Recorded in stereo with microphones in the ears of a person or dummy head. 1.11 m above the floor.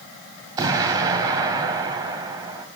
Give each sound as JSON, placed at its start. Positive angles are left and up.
{"t": 0.6, "sound": "an explosion", "side_deg": -25, "distance_m": 1.8}